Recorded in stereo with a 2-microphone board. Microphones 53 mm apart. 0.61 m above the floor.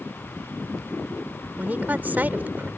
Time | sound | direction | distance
1.6 | a woman speaking | 35° right (ahead or behind) | ?